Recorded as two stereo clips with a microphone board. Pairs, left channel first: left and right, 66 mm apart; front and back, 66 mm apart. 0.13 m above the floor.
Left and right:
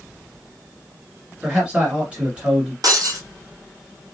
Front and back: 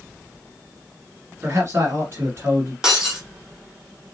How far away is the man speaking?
About 1.8 m.